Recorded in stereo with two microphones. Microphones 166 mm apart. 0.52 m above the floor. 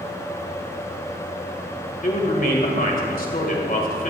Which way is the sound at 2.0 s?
55° left (ahead or behind).